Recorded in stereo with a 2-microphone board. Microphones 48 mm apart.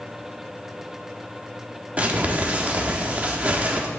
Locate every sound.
2.0 s crumpling: 30° right (ahead or behind), 0.9 m